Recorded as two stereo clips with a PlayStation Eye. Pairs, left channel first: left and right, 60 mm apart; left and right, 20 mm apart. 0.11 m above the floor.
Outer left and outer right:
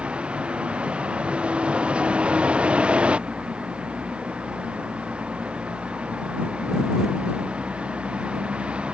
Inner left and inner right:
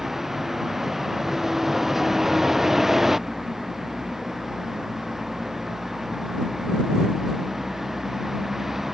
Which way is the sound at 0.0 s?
20° right (ahead or behind).